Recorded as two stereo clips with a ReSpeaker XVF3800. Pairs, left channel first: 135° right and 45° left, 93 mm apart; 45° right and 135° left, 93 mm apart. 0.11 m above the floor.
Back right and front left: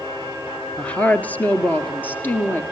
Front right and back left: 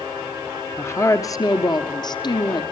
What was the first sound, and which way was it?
A woman speaking, 70° right.